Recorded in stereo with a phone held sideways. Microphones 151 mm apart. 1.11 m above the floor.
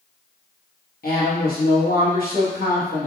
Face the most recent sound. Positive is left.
turn(degrees=75)  # may be behind; listen again after turning